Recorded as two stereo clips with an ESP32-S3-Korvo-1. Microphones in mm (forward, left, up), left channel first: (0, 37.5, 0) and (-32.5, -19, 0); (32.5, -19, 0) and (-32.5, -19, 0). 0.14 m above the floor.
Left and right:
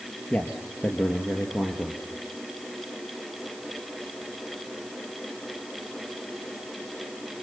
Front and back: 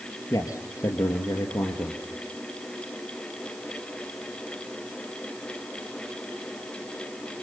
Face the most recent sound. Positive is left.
turn(degrees=5)